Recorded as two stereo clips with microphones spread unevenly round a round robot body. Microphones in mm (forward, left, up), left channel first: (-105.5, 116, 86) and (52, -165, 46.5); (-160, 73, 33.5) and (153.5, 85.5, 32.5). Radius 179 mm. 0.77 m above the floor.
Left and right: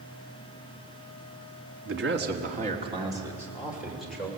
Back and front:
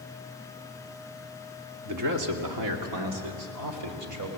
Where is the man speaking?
25° right, 2 m; by 4.3 s 30° left, 4 m.